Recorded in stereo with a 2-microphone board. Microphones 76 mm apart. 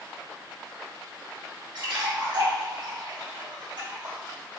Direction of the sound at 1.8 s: 70° right (ahead or behind).